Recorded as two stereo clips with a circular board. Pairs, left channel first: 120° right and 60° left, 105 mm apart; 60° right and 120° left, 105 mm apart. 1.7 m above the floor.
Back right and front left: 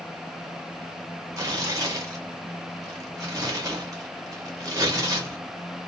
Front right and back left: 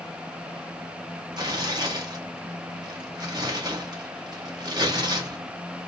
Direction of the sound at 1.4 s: 100° left.